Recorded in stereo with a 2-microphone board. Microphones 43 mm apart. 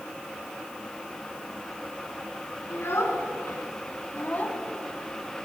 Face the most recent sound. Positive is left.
turn(degrees=10)  # may be behind; listen again after turning